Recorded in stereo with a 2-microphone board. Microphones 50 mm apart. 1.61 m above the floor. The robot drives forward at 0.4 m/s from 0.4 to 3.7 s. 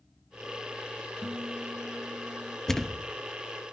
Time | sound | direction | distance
1.2 | a guitar | 50° right (ahead or behind) | 3.5 m
2.7 | a thud | 10° left (ahead or behind) | 0.9 m